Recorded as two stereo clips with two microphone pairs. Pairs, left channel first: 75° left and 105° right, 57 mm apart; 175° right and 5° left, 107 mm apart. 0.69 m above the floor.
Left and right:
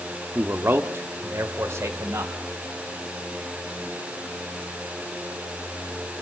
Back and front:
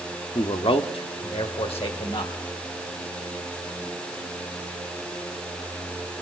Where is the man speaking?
155° right, 1.2 m; by 2.3 s 145° right, 4 m.